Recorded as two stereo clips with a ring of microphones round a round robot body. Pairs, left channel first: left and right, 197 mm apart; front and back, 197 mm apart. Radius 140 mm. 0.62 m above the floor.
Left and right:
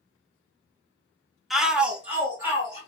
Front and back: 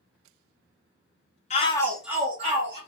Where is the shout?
Straight ahead, 0.6 m; by 2.8 s 165° right, 0.8 m.